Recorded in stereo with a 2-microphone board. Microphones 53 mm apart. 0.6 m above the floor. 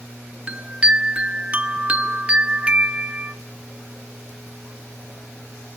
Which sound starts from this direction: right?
A chime, at 0.5 s.